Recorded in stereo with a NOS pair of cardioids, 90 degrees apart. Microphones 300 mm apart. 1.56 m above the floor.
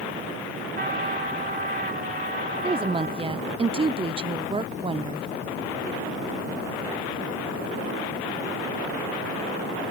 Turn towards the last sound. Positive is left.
turn(degrees=-20)